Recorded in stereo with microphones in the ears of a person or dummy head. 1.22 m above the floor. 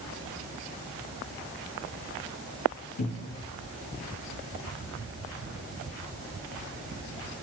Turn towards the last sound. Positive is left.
turn(degrees=65)  # may be behind; listen again after turning